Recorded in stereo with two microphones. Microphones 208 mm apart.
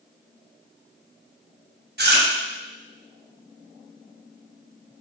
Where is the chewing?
55° right (ahead or behind), 0.7 m.